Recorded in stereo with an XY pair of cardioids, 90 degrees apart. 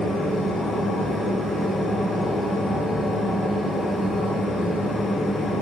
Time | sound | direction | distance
0.0 | a machine running | 65° left | 0.7 m